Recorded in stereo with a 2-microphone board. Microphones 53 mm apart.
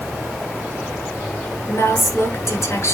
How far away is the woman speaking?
About 6 m.